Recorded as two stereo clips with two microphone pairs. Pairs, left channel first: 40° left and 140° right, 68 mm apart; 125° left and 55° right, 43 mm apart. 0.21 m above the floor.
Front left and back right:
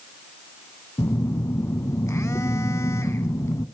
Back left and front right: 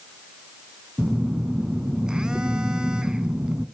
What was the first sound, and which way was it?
A phone buzzing, 15° left.